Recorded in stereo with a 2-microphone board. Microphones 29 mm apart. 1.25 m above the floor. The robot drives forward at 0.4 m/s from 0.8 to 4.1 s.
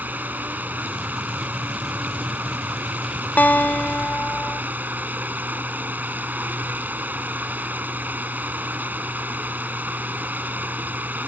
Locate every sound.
0.0 s running water: 80° right; by 11.3 s 85° right
3.4 s a guitar: 80° left